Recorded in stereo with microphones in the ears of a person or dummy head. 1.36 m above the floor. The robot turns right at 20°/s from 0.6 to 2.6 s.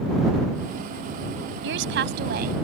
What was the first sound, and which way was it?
A woman speaking, 65° right (ahead or behind).